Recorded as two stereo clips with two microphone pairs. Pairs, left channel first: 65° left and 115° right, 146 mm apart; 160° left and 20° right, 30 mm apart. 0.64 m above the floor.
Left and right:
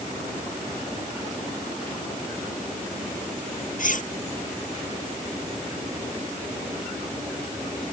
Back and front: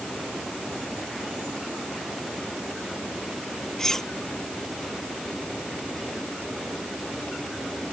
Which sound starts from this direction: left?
Cutlery clinking, at 3.8 s.